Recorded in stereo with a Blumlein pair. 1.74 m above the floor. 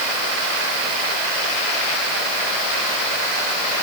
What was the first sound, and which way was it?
Only background noise.